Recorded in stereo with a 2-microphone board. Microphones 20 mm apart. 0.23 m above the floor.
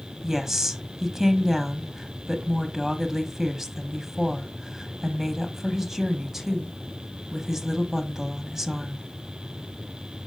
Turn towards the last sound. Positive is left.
turn(degrees=-20)  # may be behind; listen again after turning